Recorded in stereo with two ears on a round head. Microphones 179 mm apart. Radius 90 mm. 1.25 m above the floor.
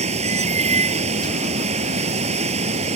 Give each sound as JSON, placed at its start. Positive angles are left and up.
{"t": 0.0, "sound": "running water", "side_deg": -35}